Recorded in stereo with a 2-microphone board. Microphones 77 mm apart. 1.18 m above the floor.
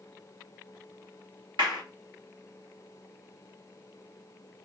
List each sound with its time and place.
1.6 s a clap: 80° right, 2.0 m